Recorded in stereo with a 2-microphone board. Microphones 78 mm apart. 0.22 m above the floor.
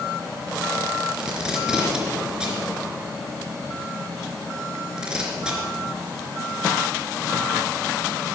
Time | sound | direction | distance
1.2 | tape being pulled | 10° right (ahead or behind) | 3 m